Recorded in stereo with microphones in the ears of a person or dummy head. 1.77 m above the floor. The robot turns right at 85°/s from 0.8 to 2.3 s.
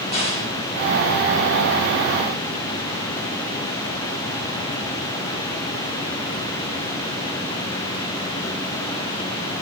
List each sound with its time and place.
0.1 s a crack: 35° left (ahead or behind), 2.5 m